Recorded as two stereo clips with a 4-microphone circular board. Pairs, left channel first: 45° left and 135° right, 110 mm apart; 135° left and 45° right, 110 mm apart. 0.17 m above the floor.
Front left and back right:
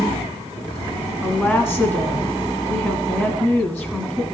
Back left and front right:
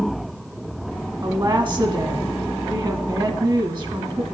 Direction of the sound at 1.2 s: 35° right.